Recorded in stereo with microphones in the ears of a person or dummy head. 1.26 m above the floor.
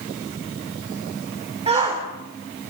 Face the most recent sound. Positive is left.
turn(degrees=-35)  # may be behind; listen again after turning